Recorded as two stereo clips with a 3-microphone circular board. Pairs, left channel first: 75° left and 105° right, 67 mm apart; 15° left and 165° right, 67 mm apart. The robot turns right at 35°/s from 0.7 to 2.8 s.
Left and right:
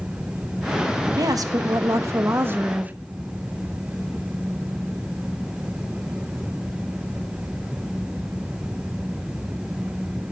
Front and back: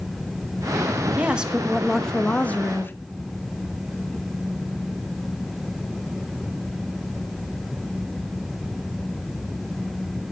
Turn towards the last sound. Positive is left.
turn(degrees=-40)